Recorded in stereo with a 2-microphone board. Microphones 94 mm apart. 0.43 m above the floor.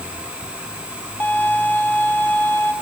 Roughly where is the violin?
Centre.